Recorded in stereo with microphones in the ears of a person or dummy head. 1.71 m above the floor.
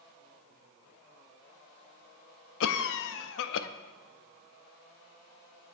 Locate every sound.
2.6 s a cough: 75° left (ahead or behind), 0.6 m